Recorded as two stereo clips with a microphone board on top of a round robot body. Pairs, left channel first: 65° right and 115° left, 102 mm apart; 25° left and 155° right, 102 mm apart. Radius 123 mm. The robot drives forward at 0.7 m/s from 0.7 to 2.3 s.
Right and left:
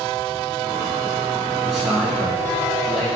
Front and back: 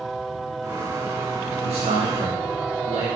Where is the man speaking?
155° right, 2.5 m; by 3.1 s 160° right, 3 m.